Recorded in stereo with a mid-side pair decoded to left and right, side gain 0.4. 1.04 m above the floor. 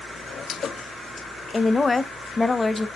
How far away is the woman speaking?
About 0.5 m.